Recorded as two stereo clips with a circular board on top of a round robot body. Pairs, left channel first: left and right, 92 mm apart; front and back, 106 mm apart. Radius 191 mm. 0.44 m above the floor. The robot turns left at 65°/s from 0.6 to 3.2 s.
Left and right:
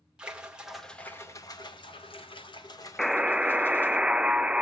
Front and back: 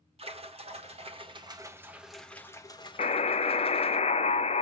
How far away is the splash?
About 1.7 m.